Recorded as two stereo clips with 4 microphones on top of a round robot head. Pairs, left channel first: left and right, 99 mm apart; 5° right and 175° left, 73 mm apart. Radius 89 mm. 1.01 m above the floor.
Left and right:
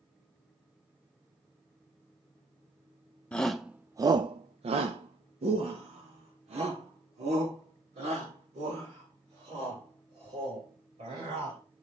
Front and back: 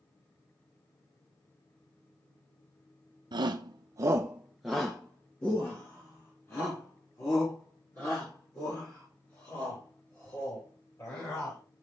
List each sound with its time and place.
3.3 s a shout: 170° left, 0.7 m; by 11.6 s 60° right, 5.5 m